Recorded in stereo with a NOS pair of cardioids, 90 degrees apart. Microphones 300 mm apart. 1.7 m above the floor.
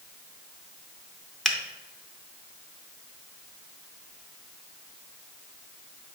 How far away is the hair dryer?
No hair dryer in this recording.